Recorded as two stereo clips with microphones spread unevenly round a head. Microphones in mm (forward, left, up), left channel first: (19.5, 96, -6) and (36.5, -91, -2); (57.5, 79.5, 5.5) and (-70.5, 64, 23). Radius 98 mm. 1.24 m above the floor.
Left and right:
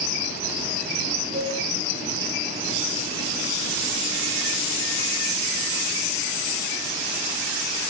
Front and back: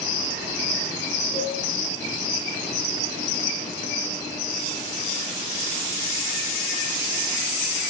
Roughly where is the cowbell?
Behind right.